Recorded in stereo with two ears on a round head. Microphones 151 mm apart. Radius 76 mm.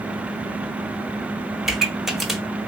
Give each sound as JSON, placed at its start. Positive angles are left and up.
{"t": 1.6, "sound": "a pop", "side_deg": 0, "distance_m": 0.6}